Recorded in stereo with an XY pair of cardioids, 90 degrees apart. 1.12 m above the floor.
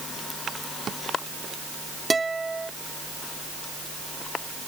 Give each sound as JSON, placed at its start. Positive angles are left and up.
{"t": 2.1, "sound": "a guitar", "azimuth_deg": -25}